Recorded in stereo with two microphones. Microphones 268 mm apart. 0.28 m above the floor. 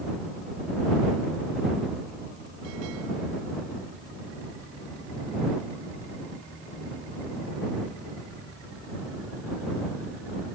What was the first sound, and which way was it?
Only background noise.